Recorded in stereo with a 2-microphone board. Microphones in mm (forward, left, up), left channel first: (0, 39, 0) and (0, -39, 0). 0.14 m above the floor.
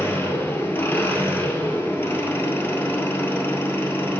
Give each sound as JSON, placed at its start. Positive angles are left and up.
{"t": 0.0, "sound": "an engine running", "side_deg": 30, "distance_m": 1.5}